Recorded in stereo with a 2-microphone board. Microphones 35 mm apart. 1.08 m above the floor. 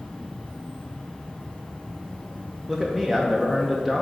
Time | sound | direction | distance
0.0 | an insect | 20° left (ahead or behind) | 1.2 m
2.7 | a man speaking | 5° left (ahead or behind) | 0.6 m